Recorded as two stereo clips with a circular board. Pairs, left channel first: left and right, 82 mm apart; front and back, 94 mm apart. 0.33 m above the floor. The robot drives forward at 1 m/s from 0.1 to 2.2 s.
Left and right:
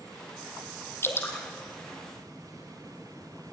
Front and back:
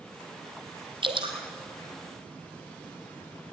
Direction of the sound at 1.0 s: 150° left.